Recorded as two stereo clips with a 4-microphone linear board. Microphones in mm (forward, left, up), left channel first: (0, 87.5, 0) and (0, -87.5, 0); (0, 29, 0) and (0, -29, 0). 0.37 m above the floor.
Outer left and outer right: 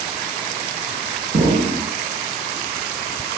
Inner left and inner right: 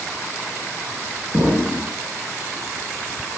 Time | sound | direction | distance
1.3 | an explosion | 60° right (ahead or behind) | 4 m